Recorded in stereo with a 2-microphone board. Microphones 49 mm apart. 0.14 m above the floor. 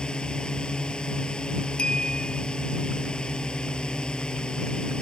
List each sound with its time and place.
0.0 s a drone: 20° left (ahead or behind)
1.8 s a clink: 20° left (ahead or behind)